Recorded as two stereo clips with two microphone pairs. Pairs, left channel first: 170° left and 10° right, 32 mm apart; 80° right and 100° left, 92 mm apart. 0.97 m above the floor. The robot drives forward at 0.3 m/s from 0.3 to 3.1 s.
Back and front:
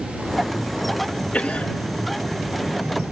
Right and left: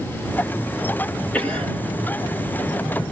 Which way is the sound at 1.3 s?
145° right.